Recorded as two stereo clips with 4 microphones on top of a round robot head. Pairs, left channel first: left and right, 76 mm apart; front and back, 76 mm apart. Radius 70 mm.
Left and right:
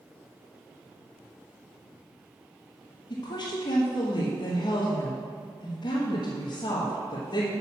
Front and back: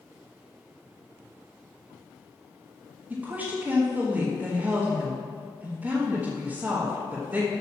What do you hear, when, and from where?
3.1 s a woman speaking: 110° left, 1.6 m